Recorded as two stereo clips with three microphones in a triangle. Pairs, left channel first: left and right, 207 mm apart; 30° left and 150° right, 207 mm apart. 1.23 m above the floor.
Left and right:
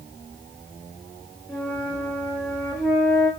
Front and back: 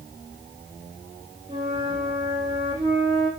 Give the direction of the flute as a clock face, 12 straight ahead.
7 o'clock.